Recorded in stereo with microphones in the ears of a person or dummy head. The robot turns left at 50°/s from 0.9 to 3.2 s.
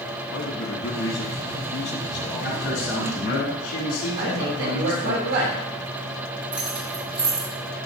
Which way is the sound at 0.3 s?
85° left.